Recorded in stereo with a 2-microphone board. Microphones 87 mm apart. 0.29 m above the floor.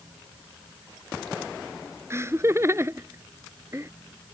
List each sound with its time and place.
2.1 s laughter: 30° right (ahead or behind)